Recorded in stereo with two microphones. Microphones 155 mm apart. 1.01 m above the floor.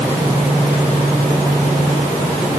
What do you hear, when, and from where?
Only background noise.